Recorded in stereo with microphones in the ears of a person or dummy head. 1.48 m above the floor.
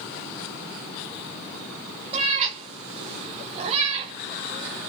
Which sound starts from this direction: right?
A cat meowing, at 2.1 s.